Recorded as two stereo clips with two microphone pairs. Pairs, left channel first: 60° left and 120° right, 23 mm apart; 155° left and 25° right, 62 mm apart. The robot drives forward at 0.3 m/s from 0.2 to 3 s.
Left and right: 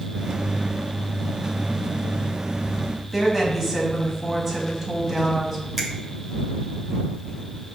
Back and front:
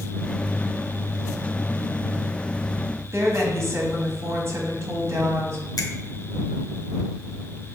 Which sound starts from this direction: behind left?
A finger snap, at 5.8 s.